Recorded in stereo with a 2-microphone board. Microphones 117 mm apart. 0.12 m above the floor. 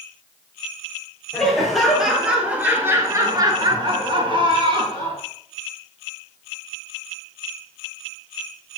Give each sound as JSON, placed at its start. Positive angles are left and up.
{"t": 1.3, "sound": "laughter", "side_deg": 5, "distance_m": 3.0}